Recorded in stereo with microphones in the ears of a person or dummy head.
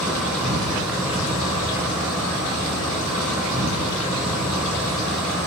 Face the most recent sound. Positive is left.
turn(degrees=-5)  # may be behind; listen again after turning